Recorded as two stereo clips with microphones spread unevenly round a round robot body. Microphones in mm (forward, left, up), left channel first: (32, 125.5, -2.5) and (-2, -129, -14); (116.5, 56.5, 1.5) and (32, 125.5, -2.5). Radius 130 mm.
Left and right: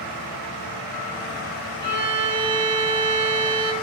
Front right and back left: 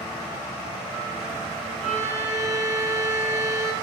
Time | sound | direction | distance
1.8 | a violin | 75° right | 2 m